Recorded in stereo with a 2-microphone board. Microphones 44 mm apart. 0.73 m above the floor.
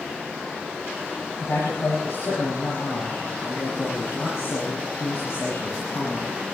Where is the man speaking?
75° left (ahead or behind), 5.5 m.